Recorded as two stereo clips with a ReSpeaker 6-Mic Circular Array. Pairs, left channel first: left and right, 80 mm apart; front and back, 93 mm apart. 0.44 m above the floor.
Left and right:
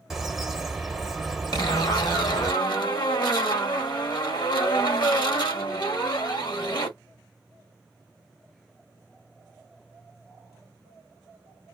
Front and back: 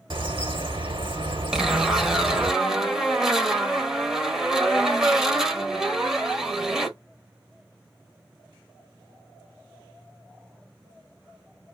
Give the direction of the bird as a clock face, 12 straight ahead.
6 o'clock.